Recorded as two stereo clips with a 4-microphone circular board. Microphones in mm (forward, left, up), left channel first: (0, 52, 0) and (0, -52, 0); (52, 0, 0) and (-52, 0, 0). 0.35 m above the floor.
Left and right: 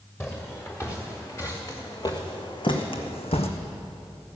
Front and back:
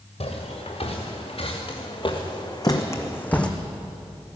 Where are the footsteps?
20° left, 3 m; by 3.5 s 80° left, 1.3 m.